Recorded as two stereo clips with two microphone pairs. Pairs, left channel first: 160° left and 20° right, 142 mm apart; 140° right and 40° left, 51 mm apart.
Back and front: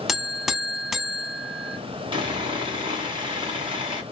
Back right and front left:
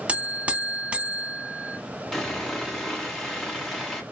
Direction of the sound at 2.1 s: 55° right.